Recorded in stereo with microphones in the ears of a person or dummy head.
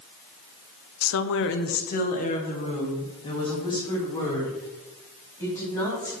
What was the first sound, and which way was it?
A woman speaking, 85° left.